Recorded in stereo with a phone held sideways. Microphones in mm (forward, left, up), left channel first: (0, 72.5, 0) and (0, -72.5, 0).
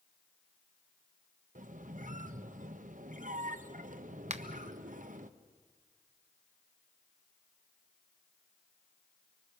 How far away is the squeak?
About 0.9 m.